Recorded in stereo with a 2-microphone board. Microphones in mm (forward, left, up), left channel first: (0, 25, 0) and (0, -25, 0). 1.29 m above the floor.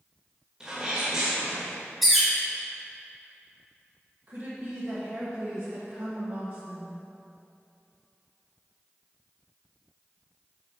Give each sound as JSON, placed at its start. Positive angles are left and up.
{"t": 0.6, "sound": "a sneeze", "side_deg": -20, "distance_m": 1.8}
{"t": 2.0, "sound": "a bird", "side_deg": 0, "distance_m": 1.7}
{"t": 4.3, "sound": "a woman speaking", "side_deg": -45, "distance_m": 1.4}